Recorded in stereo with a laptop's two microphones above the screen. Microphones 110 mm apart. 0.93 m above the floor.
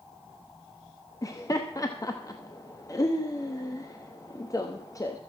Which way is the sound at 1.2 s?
35° left (ahead or behind).